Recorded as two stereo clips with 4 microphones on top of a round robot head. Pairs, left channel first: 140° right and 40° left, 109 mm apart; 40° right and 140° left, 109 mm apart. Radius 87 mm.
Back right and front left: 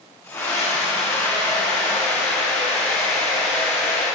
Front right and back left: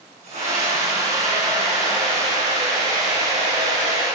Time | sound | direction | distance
0.2 | a scream | 150° left | 6 m